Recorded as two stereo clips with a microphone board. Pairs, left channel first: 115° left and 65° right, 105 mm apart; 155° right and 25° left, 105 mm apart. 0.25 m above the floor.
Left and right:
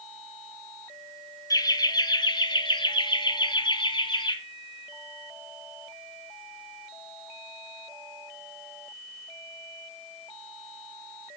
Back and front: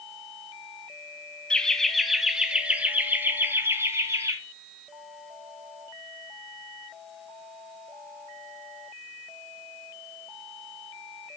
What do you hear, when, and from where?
1.5 s laughter: 125° left, 1.3 m; by 4.4 s 80° left, 2 m